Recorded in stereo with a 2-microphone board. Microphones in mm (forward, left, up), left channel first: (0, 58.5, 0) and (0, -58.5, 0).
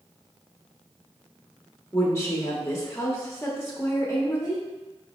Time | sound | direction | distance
1.9 | a woman speaking | 25° left (ahead or behind) | 0.8 m